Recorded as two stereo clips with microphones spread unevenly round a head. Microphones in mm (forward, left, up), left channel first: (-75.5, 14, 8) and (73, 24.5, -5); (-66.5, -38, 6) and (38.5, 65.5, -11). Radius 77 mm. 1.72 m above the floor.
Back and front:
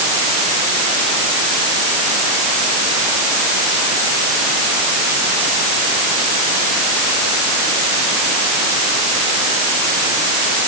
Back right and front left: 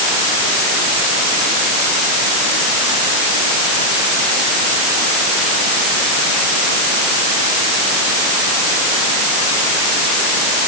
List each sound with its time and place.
Only background noise.